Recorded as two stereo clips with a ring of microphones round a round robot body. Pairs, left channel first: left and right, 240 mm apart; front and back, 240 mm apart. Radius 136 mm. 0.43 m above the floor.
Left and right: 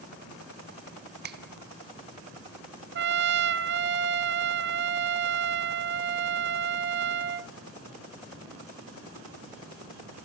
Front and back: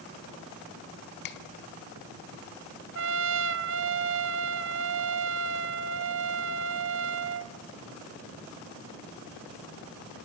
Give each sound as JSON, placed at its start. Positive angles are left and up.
{"t": 1.2, "sound": "a finger snap", "azimuth_deg": -40, "distance_m": 1.2}
{"t": 3.0, "sound": "a trumpet", "azimuth_deg": -135, "distance_m": 0.6}